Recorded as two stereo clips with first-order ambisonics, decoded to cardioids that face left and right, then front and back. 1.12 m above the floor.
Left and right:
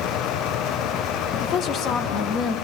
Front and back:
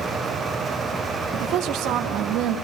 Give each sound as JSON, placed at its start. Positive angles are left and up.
{"t": 1.3, "sound": "a woman speaking", "azimuth_deg": 140, "distance_m": 2.5}